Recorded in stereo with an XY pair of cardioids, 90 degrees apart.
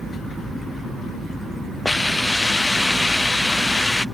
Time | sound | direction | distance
1.9 | a hiss | 20° left | ?